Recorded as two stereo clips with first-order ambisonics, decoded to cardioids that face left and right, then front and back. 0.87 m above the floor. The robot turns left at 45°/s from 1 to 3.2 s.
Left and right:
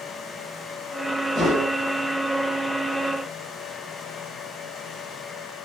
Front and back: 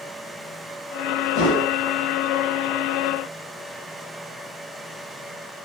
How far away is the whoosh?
About 2.5 m.